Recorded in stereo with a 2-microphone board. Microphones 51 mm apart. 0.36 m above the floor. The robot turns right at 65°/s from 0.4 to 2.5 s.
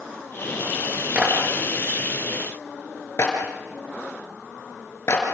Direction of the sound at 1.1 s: 30° right (ahead or behind).